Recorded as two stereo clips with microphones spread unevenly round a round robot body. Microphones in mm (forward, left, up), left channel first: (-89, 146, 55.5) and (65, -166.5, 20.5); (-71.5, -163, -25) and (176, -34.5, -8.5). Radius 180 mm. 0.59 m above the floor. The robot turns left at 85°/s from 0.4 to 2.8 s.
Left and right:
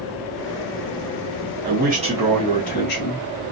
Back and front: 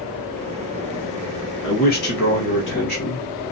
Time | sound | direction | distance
1.6 | a man speaking | 90° right | 1.1 m